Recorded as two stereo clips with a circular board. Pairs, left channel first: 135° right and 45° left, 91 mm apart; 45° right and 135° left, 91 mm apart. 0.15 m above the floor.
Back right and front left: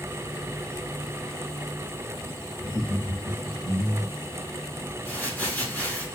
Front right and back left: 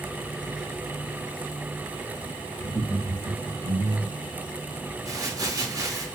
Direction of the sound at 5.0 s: 160° left.